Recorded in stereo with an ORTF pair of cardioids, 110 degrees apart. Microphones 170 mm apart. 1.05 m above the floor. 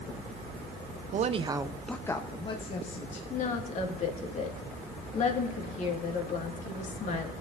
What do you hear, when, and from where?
1.1 s a woman speaking: 50° right, 0.7 m; by 3.2 s 45° left, 1.6 m
3.3 s a woman speaking: 45° left, 1.9 m